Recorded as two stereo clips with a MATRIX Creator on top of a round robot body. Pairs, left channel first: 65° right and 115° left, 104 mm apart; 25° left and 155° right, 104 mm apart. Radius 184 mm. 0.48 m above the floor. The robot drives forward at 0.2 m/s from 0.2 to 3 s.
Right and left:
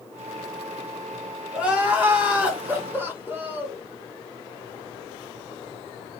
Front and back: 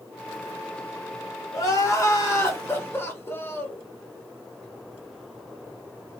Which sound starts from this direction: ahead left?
Crying, at 1.5 s.